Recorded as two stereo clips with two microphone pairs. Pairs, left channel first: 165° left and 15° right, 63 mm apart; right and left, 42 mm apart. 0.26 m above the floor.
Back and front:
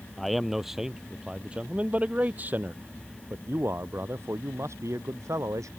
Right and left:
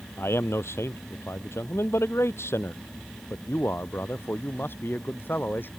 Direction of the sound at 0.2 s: 105° right.